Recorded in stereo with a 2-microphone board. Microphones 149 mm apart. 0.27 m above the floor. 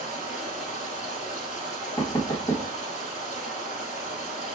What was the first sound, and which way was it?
Running water, 50° left (ahead or behind).